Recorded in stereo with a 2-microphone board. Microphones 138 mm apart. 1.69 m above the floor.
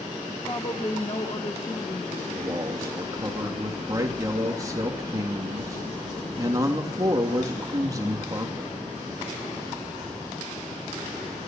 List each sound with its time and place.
0.5 s a woman speaking: 30° left (ahead or behind), 1.1 m; by 2.3 s 60° left (ahead or behind), 3 m
2.4 s a man speaking: 25° right (ahead or behind), 3 m